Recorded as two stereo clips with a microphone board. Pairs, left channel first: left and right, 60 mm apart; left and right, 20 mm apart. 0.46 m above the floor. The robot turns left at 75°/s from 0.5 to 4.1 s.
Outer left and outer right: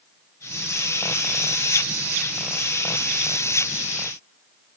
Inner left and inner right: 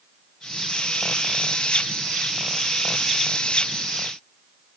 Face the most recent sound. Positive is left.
No sound to turn to.